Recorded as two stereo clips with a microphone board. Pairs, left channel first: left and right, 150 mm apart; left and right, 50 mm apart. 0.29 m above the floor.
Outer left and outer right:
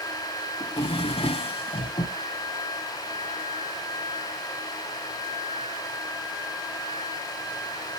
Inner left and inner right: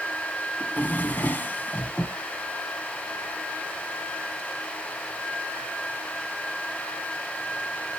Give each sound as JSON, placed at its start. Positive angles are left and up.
{"t": 0.6, "sound": "a drawer", "side_deg": 40, "distance_m": 1.2}